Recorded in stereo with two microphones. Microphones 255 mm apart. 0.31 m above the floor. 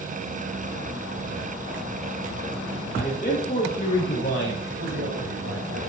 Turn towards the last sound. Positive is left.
turn(degrees=-55)  # may be behind; listen again after turning